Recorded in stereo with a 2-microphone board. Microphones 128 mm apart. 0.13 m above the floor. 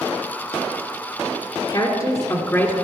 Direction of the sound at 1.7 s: 40° left (ahead or behind).